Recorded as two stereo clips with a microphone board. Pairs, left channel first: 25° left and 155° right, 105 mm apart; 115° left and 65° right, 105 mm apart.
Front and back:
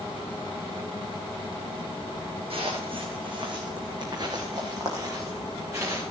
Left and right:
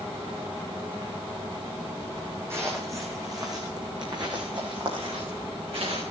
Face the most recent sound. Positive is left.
turn(degrees=-95)